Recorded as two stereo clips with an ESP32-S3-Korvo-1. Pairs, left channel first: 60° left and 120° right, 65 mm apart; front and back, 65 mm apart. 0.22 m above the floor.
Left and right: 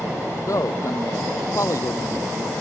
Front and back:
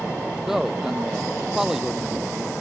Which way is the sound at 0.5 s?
95° left.